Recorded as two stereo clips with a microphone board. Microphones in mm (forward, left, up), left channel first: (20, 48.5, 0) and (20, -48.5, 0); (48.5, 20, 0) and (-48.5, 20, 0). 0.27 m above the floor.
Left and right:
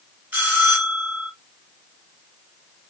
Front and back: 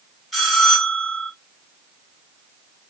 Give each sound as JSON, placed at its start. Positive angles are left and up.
{"t": 0.3, "sound": "a bell", "azimuth_deg": -85, "distance_m": 1.4}